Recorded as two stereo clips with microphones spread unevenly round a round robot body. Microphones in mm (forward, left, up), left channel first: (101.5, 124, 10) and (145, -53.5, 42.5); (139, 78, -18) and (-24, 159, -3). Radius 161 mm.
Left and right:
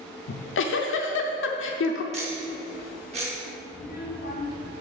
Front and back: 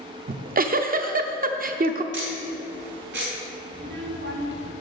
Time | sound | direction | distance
0.3 | a giggle | 105° left | 0.7 m
2.1 | ticking | 145° right | 0.7 m
3.7 | a child speaking | 140° left | 1.3 m